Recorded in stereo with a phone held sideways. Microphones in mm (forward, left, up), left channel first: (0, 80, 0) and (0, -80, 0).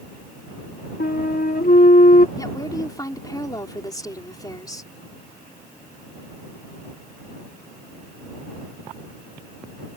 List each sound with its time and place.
1.0 s a flute: 70° left (ahead or behind)
2.4 s a woman speaking: 25° left (ahead or behind)